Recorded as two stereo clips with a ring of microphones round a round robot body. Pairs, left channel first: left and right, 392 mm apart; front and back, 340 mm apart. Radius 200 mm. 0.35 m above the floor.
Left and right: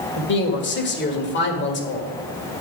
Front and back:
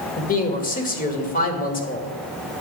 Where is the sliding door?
I don't hear a sliding door.